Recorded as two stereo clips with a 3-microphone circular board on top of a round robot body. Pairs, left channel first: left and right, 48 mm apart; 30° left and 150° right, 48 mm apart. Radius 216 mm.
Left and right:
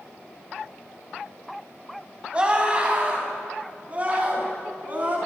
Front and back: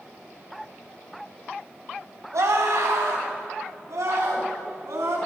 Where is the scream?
160° right, 4.5 m; by 5.2 s 145° right, 6.5 m.